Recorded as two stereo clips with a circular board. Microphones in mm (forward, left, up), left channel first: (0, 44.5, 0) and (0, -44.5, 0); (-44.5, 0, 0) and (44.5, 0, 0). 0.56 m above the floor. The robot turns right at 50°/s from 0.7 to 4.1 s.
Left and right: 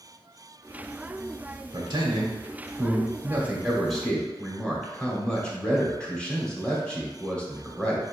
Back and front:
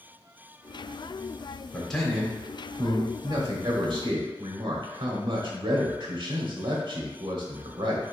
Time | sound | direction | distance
1.7 | a man speaking | 105° right | 1.1 m